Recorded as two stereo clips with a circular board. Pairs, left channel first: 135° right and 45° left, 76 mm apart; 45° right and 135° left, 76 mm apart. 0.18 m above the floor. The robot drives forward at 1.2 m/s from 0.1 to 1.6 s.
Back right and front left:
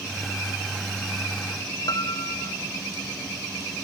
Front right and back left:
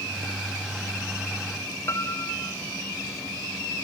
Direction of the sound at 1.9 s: 100° right.